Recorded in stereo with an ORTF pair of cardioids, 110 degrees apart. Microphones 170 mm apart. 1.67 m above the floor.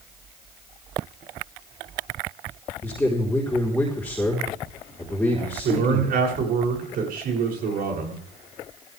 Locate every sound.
2.8 s a man speaking: 10° left, 4 m
5.6 s a man speaking: 65° right, 7.5 m